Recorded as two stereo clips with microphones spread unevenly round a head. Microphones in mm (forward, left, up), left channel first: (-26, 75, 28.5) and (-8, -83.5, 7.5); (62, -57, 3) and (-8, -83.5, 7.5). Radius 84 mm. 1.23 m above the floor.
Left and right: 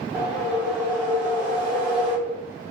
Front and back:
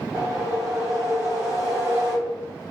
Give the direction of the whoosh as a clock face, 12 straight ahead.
6 o'clock.